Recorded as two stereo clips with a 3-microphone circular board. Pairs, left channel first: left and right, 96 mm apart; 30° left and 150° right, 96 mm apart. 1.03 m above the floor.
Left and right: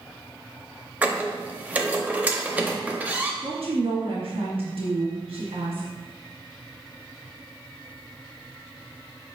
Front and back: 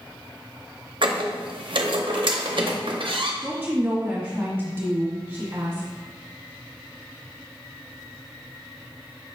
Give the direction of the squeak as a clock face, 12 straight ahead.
5 o'clock.